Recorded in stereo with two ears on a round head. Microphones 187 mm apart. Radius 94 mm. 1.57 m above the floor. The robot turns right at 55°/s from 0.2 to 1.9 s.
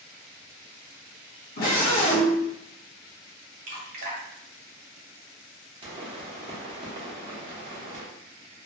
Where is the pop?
25° right (ahead or behind), 1.0 m.